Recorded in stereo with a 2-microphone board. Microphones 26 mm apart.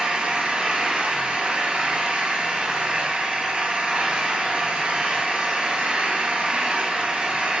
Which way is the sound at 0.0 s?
55° right (ahead or behind).